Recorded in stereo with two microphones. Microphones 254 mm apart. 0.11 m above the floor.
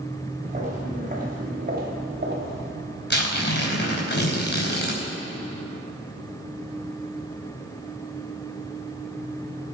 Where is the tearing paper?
45° left (ahead or behind), 4 m.